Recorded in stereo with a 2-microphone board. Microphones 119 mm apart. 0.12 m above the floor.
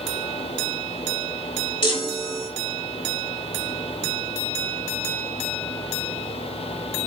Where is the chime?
40° left (ahead or behind), 1.0 m.